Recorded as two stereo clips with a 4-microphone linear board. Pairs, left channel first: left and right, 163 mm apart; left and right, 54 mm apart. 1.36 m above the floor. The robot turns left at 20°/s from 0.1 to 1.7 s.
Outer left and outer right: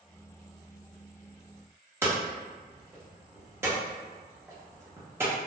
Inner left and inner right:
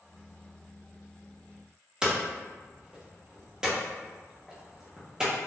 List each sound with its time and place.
2.0 s hammering: 15° right (ahead or behind), 0.9 m